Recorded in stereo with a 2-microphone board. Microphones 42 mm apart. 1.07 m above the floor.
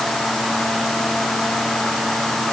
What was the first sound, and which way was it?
Only background noise.